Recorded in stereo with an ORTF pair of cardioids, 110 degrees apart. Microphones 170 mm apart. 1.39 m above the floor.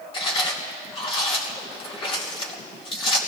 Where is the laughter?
No laughter in this recording.